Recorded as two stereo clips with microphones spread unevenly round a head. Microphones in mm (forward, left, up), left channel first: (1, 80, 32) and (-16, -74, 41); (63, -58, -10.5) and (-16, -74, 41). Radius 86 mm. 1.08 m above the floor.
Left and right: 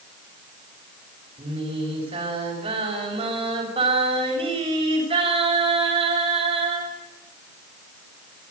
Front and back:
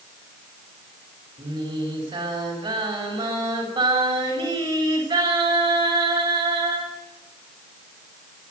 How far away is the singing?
About 7 m.